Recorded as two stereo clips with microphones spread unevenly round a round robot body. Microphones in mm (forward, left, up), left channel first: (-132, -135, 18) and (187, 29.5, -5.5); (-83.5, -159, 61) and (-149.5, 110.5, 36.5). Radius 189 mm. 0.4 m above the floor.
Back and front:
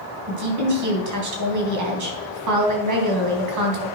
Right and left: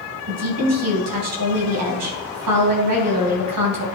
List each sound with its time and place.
0.3 s a woman speaking: 70° left, 3.5 m